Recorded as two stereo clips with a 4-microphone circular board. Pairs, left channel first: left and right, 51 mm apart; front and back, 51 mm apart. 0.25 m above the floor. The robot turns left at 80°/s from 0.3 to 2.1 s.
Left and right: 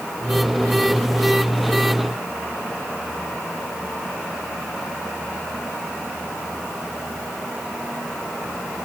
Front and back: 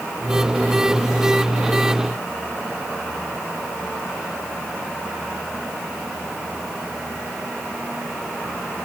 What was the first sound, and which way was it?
Only background noise.